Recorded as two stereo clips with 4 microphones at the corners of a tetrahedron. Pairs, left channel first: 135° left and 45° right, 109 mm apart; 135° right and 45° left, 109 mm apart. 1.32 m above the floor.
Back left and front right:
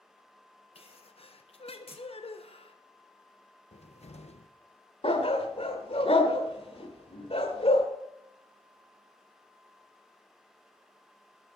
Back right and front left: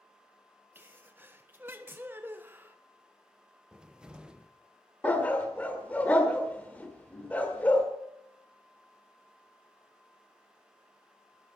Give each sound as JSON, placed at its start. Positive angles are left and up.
{"t": 0.8, "sound": "a sneeze", "azimuth_deg": 115, "distance_m": 1.3}
{"t": 3.7, "sound": "a cupboard door", "azimuth_deg": 125, "distance_m": 0.9}
{"t": 5.0, "sound": "a dog barking", "azimuth_deg": 150, "distance_m": 1.7}